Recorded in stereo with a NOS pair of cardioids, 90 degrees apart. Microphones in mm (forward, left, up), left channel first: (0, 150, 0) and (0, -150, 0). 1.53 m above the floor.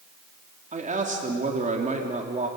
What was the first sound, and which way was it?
A man speaking, 25° right.